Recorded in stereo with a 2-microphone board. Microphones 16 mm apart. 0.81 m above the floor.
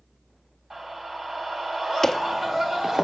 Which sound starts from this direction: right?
A scream, at 0.7 s.